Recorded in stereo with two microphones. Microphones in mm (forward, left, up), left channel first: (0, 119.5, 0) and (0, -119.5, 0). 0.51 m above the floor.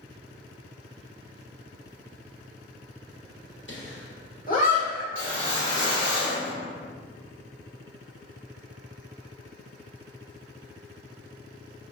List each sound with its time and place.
3.7 s laughter: 55° left (ahead or behind), 1.3 m; by 5.0 s 20° left (ahead or behind), 1.8 m
5.2 s a whoosh: 55° left (ahead or behind), 1.2 m